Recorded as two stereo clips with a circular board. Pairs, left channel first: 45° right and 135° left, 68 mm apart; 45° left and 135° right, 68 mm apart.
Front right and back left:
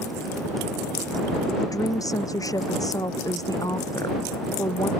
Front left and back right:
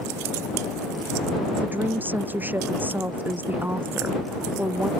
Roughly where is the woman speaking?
Right.